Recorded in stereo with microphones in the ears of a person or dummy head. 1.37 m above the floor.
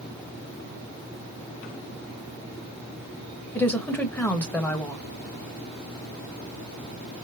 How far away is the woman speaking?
About 1.0 m.